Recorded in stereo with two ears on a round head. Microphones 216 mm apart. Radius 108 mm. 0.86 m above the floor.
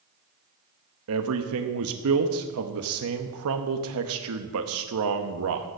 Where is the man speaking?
65° right (ahead or behind), 0.8 m.